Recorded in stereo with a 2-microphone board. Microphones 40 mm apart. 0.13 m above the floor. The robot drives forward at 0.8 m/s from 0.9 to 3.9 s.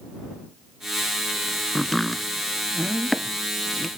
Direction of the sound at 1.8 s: 5° left (ahead or behind).